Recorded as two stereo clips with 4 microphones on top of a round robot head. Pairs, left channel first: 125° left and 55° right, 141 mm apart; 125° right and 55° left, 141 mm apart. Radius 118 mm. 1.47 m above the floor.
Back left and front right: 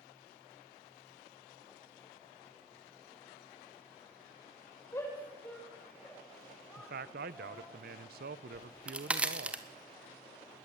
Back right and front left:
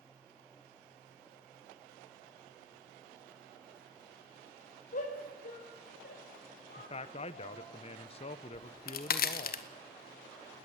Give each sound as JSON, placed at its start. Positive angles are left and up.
{"t": 4.9, "sound": "a shout", "azimuth_deg": -160, "distance_m": 5.0}
{"t": 6.8, "sound": "a man speaking", "azimuth_deg": -75, "distance_m": 0.6}
{"t": 8.5, "sound": "a crack", "azimuth_deg": -140, "distance_m": 1.5}